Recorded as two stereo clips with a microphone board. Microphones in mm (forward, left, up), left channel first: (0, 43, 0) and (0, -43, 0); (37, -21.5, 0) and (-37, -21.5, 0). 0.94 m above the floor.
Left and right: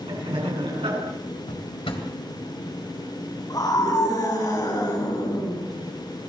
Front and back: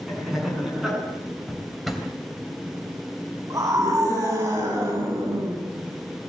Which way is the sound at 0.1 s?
95° right.